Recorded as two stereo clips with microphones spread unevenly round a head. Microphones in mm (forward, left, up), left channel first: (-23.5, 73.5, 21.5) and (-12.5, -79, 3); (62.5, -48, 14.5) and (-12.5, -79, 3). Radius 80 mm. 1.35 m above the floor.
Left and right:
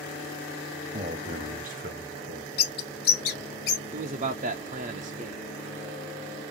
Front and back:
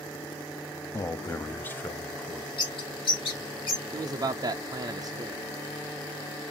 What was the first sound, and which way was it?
A man speaking, 30° right.